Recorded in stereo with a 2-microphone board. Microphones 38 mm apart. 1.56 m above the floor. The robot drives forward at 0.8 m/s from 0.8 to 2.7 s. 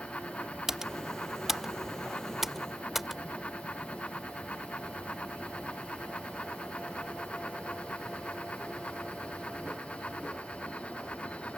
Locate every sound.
0.7 s typing on a keyboard: 15° right (ahead or behind); by 3.2 s 10° right (ahead or behind)